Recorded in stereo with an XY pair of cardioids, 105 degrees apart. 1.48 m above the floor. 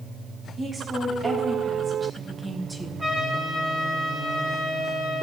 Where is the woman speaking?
35° right, 2 m; by 3.1 s 10° right, 0.9 m.